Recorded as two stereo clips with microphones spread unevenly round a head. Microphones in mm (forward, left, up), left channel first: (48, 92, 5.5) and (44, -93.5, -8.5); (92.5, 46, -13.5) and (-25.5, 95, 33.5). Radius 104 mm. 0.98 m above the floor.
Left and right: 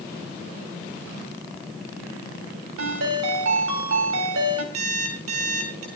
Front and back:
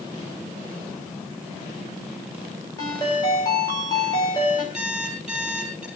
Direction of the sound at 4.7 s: 115° right.